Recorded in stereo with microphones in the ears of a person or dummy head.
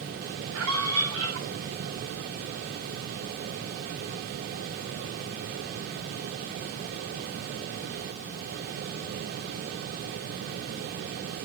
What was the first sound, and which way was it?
A scream, 85° right.